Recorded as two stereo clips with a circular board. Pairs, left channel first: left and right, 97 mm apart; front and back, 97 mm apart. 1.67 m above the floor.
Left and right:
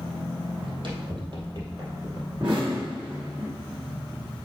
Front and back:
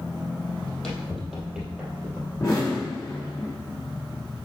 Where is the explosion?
55° right, 3.5 m.